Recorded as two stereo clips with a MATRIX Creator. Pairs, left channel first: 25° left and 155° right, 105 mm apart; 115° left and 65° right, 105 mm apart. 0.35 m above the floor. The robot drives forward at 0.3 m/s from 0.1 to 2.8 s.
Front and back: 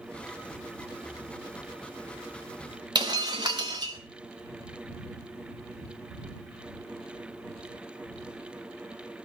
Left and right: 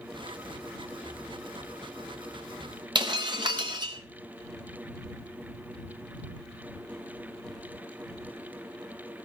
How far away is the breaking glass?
About 3 m.